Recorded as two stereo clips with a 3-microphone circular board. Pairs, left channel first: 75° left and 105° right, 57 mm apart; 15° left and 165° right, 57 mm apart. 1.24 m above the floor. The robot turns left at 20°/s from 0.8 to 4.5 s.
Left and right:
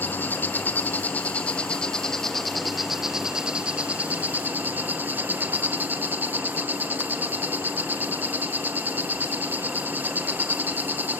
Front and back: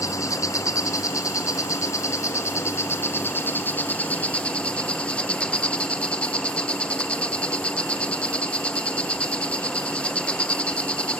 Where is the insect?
20° left, 1.2 m; by 11.2 s 50° right, 1.2 m.